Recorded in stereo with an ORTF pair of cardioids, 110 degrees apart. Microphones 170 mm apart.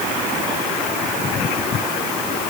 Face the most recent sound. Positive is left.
No sound to turn to.